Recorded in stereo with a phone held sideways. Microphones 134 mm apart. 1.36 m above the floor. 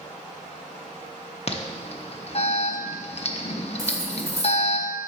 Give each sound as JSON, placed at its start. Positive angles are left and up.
{"t": 1.5, "sound": "an alarm", "side_deg": 50, "distance_m": 0.6}
{"t": 3.8, "sound": "cutlery clinking", "side_deg": -20, "distance_m": 1.1}